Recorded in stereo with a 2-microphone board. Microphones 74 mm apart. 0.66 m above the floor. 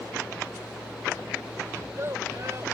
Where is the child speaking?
45° right (ahead or behind).